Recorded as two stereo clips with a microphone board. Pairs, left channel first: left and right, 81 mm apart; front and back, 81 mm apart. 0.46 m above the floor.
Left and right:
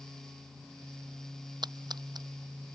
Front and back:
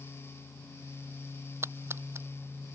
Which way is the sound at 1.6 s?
120° right.